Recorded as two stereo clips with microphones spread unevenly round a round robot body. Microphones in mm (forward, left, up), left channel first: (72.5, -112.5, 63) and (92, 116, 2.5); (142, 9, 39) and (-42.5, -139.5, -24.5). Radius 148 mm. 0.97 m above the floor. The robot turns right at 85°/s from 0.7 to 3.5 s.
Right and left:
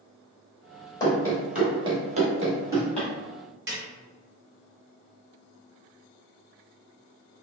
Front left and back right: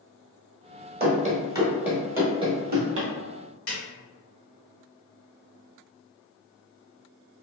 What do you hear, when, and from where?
1.0 s running footsteps: 110° right, 1.1 m; by 3.1 s 140° right, 1.1 m
3.7 s a snare drum: 60° left, 1.4 m